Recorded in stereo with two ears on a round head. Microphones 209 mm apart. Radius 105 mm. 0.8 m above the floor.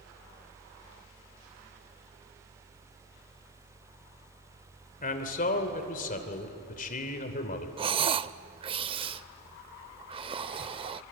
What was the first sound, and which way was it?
A man speaking, 35° left (ahead or behind).